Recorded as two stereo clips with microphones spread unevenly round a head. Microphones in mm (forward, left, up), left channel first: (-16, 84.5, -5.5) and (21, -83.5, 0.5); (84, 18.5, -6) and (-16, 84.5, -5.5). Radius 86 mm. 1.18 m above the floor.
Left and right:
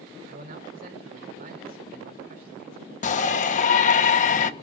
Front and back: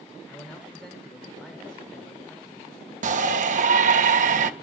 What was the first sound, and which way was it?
A man speaking, 120° right.